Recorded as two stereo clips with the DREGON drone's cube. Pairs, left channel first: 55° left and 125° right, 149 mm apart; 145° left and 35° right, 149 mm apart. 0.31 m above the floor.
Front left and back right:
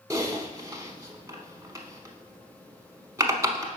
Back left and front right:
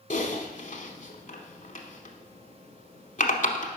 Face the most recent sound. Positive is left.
turn(degrees=170)